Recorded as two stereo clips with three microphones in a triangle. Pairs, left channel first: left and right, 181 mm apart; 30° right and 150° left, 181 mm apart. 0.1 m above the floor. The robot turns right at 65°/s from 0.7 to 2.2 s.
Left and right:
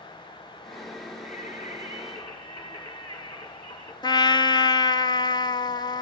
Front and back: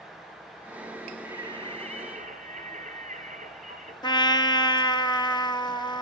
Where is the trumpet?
25° left, 0.6 m.